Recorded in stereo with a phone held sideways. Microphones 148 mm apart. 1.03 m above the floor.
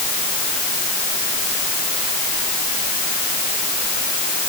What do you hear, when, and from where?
Only background noise.